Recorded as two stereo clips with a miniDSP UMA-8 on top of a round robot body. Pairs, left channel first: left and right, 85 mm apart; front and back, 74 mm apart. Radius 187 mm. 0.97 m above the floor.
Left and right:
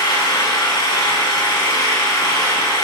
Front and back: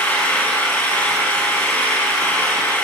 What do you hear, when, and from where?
0.0 s an engine running: 65° left, 5.5 m